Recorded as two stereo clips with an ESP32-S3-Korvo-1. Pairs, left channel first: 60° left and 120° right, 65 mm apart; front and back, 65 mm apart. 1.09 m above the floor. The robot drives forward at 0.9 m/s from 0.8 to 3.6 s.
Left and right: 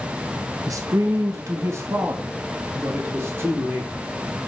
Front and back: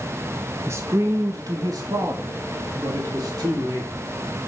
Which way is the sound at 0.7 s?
140° right.